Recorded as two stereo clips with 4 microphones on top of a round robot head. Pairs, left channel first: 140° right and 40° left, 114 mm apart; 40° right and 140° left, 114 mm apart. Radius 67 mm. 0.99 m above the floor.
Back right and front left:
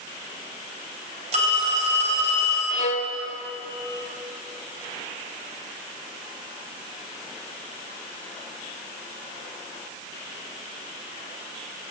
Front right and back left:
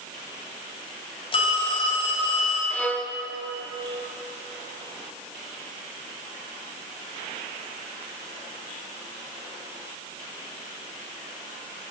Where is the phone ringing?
5° left, 3.5 m.